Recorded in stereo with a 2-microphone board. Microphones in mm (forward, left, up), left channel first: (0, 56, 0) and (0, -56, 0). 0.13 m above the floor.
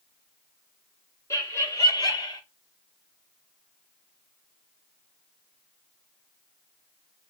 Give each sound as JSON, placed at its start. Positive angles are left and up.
{"t": 1.3, "sound": "laughter", "side_deg": 25, "distance_m": 1.8}